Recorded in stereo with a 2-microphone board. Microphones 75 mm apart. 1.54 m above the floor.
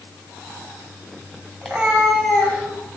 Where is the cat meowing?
5° left (ahead or behind), 2 m; by 3.0 s 30° left (ahead or behind), 3 m.